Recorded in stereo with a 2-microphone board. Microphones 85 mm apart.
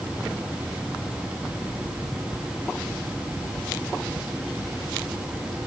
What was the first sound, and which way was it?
Only background noise.